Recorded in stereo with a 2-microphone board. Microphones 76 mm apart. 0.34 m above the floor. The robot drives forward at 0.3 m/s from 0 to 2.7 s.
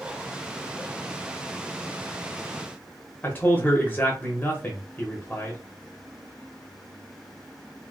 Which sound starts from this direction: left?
A man speaking, at 3.2 s.